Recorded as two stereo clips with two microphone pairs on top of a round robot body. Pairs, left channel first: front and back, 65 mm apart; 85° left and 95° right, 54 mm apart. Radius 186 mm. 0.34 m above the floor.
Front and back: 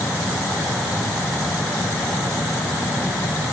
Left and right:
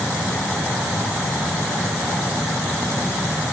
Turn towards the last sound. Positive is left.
No sound to turn to.